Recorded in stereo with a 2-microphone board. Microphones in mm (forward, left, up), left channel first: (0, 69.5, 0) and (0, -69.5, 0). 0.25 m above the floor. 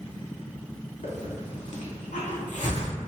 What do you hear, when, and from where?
1.0 s a hiss: 60° left (ahead or behind), 0.7 m